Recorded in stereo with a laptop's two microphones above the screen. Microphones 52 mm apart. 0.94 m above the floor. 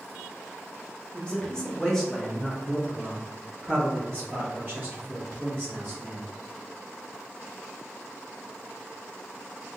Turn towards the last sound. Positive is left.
turn(degrees=-35)  # may be behind; listen again after turning